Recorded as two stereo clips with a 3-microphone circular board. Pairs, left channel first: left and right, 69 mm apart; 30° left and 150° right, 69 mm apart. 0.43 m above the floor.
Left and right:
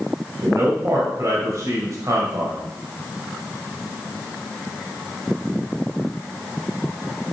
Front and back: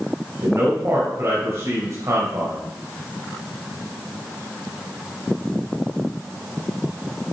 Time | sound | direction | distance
0.4 | a man speaking | 120° right | 2 m